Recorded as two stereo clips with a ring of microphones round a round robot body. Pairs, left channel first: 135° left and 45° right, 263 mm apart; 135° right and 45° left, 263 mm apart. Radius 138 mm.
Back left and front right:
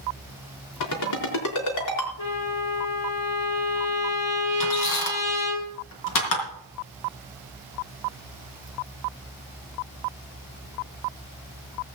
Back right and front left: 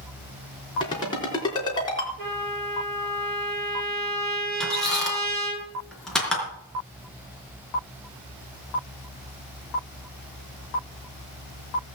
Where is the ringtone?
150° left, 4 m.